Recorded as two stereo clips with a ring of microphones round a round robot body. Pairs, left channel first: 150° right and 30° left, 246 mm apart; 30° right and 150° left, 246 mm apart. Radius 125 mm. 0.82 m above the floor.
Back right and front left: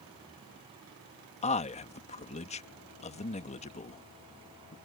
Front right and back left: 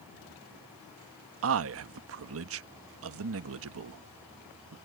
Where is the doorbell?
No doorbell in this recording.